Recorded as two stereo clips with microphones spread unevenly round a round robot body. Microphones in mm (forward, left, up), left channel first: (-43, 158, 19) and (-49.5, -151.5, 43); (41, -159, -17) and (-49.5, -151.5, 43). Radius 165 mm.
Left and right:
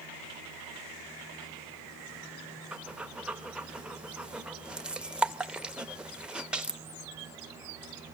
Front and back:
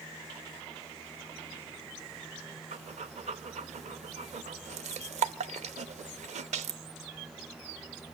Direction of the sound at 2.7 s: Straight behind.